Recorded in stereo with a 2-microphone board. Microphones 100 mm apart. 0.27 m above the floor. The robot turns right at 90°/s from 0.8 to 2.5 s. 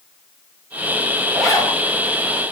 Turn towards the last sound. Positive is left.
turn(degrees=95)